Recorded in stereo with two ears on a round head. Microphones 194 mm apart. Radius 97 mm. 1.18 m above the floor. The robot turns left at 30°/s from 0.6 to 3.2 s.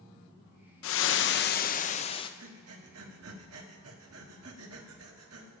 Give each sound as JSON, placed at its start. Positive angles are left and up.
{"t": 0.8, "sound": "frying", "azimuth_deg": 65, "distance_m": 0.6}
{"t": 2.4, "sound": "breathing", "side_deg": -70, "distance_m": 1.3}